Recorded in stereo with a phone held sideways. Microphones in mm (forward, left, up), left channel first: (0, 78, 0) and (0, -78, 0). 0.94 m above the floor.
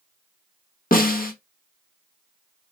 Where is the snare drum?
65° left (ahead or behind), 0.8 m.